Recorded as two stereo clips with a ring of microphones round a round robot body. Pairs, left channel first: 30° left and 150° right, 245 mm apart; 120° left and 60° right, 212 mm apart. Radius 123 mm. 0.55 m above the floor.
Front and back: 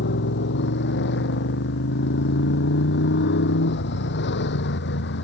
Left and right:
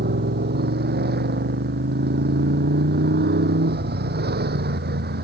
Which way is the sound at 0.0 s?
20° right.